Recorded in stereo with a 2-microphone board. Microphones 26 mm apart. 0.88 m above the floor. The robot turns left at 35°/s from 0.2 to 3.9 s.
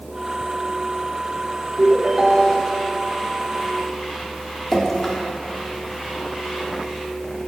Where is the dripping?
15° left (ahead or behind), 1.6 m.